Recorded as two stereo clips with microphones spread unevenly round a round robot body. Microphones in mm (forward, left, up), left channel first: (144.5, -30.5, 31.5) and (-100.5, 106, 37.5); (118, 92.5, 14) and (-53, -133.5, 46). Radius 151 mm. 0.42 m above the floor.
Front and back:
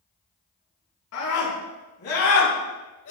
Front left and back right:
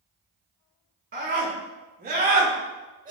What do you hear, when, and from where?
1.1 s a scream: 70° right, 5.5 m; by 3.1 s 65° right, 2.5 m